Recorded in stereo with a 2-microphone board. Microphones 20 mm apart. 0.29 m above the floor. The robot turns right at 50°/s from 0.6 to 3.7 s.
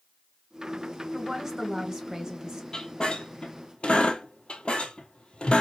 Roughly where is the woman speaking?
Behind right.